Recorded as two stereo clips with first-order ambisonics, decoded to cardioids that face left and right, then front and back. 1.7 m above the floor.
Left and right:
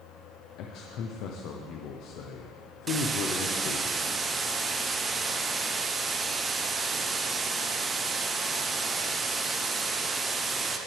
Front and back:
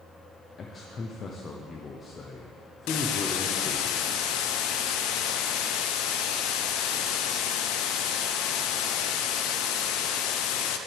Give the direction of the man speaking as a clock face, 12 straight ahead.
10 o'clock.